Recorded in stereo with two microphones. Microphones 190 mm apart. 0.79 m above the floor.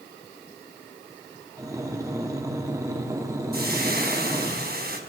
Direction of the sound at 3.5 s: 55° right (ahead or behind).